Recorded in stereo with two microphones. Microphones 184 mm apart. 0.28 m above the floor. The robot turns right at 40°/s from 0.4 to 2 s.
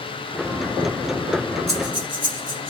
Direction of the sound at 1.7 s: 35° right (ahead or behind).